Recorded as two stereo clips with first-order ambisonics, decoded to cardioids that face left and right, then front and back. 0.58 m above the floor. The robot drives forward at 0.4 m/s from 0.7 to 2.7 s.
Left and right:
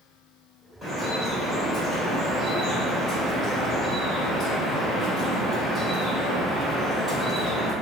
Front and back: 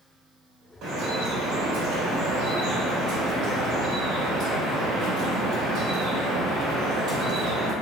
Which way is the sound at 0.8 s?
175° right.